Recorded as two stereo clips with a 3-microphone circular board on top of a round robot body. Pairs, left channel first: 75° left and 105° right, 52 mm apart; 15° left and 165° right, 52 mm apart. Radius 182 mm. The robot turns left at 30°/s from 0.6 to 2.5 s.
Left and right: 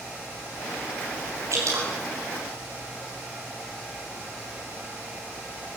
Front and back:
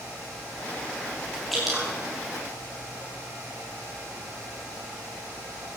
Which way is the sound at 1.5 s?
75° right.